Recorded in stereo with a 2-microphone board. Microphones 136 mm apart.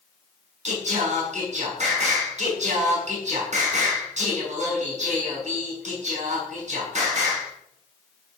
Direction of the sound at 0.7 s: 55° right (ahead or behind).